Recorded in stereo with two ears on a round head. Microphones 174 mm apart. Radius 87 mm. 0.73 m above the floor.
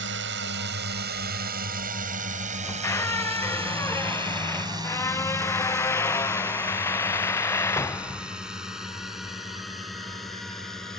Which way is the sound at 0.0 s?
65° right (ahead or behind).